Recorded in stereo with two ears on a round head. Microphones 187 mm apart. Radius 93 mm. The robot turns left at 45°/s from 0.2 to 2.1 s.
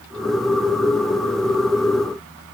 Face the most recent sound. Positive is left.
No sound to turn to.